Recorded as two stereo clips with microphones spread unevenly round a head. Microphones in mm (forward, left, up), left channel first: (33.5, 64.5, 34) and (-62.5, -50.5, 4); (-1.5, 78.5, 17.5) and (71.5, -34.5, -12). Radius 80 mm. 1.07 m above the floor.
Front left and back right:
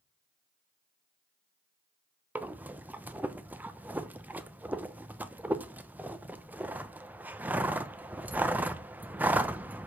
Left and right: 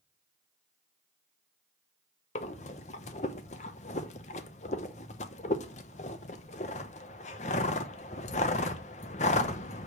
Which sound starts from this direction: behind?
Breathing, at 2.4 s.